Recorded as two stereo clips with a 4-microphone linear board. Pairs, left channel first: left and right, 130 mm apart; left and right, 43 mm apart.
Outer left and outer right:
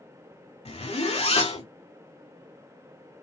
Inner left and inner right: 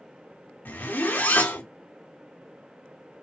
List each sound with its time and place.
0.7 s a zipper: 50° left (ahead or behind), 0.6 m